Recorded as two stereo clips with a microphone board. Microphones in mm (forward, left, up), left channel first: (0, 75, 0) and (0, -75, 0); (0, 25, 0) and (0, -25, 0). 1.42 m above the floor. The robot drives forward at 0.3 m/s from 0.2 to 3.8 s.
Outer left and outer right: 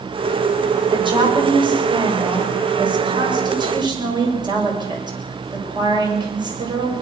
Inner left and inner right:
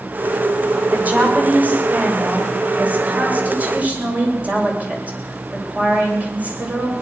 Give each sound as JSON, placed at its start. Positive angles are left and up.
{"t": 0.9, "sound": "a woman speaking", "side_deg": -35, "distance_m": 6.5}